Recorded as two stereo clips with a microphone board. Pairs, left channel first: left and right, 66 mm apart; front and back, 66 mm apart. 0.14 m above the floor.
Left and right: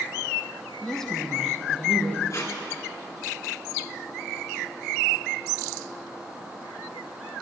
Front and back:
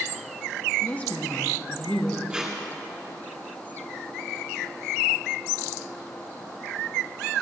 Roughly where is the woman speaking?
Ahead.